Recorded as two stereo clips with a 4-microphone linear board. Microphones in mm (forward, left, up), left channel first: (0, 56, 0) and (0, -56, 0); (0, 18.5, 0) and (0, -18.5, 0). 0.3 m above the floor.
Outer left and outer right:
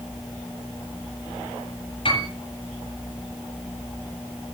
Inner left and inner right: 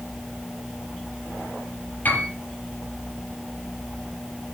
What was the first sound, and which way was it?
A piano, 50° left (ahead or behind).